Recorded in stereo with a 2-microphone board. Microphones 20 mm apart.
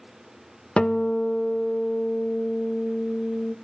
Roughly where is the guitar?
Left.